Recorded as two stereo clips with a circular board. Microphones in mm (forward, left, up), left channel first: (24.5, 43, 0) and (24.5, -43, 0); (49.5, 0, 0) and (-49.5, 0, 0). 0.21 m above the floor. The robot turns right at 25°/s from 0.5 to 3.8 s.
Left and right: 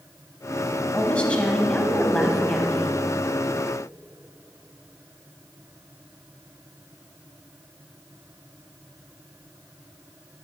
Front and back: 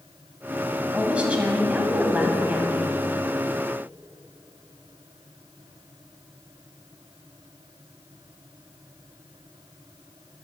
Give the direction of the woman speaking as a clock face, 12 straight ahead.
8 o'clock.